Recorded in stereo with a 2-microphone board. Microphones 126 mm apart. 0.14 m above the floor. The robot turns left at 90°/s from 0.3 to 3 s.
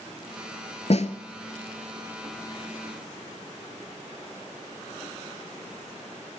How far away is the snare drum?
About 0.8 m.